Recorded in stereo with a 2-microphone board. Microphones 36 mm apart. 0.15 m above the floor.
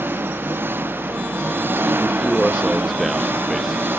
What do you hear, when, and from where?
0.0 s an engine running: 75° right (ahead or behind)
2.0 s a man speaking: centre (ahead or behind)